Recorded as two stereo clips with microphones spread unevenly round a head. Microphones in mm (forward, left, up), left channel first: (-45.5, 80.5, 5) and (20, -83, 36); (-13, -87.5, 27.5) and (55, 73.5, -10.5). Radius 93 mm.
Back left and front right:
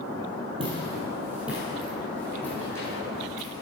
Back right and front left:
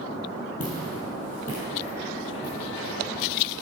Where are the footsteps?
115° right, 2 m; by 3.6 s 175° right, 4.5 m.